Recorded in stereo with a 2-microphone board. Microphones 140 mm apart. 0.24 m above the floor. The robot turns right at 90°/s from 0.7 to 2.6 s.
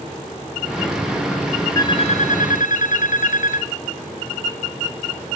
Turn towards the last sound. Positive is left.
turn(degrees=100)